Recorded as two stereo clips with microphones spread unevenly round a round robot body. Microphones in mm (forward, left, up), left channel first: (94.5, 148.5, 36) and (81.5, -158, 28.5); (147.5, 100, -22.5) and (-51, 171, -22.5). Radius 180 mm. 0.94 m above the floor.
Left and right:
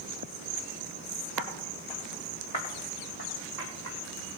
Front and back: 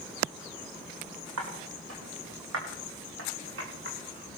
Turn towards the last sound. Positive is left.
turn(degrees=130)